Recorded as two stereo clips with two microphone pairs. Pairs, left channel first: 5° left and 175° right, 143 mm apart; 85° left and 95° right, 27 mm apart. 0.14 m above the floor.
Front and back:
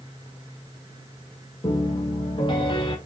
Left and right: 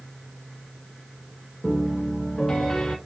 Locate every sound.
1.6 s a piano: 30° left, 1.1 m